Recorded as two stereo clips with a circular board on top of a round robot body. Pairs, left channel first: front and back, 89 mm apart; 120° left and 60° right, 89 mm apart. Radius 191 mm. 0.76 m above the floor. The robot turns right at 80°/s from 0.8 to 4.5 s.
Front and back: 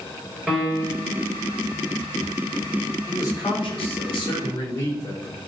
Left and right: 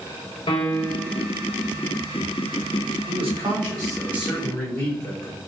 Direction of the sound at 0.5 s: 95° left.